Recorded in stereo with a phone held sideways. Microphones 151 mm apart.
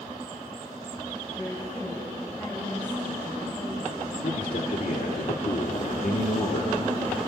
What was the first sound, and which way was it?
A woman speaking, 20° left (ahead or behind).